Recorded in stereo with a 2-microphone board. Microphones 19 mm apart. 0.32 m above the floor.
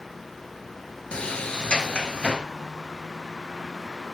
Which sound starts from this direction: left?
A sliding door, at 1.1 s.